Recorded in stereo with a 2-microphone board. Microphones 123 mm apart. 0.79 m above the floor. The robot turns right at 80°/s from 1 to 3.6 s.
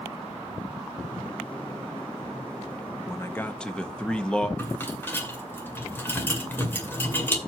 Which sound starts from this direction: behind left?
A man speaking, at 3.1 s.